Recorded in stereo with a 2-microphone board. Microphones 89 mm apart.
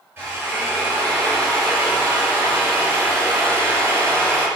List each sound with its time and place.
0.2 s a drill: 25° right (ahead or behind), 3 m